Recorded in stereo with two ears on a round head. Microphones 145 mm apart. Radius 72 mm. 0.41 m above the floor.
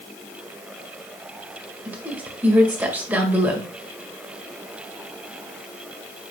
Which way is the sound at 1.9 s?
10° right (ahead or behind).